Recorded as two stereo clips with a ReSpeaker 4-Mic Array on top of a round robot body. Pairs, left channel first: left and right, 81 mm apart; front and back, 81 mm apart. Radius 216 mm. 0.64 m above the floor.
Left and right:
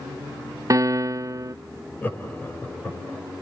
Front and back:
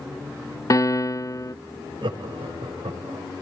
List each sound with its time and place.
0.7 s a piano: 45° right, 0.6 m
2.0 s laughter: 160° left, 5 m